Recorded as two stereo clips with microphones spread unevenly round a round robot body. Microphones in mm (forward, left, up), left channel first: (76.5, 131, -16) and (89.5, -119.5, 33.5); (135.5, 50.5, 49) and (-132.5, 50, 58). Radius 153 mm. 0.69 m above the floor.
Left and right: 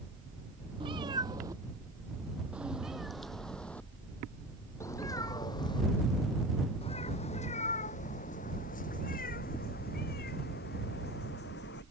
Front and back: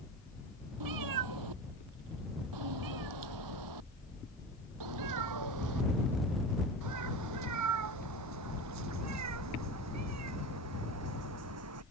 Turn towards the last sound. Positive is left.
turn(degrees=150)